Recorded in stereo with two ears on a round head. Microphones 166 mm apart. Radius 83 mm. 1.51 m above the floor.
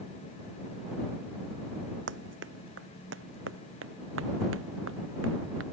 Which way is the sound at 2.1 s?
70° right (ahead or behind).